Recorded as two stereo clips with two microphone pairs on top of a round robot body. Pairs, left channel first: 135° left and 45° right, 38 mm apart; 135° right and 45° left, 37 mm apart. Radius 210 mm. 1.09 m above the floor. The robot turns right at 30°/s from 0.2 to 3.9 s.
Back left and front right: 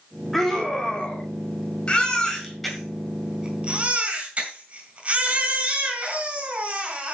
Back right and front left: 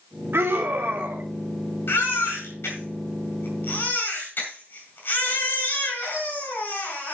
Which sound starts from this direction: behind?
A baby crying, at 1.9 s.